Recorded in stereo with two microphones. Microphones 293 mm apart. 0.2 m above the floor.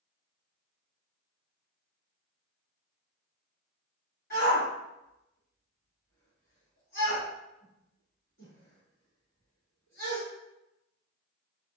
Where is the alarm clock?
I don't hear an alarm clock.